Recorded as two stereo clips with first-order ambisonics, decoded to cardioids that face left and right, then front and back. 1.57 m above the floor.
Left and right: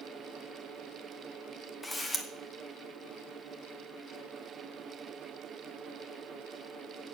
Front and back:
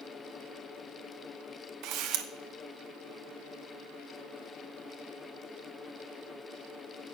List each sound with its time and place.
1.8 s a camera shutter: 170° left, 0.9 m